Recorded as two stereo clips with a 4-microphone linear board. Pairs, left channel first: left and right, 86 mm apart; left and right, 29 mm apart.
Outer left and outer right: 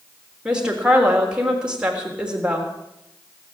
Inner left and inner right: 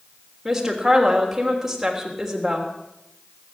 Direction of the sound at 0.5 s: 10° right (ahead or behind).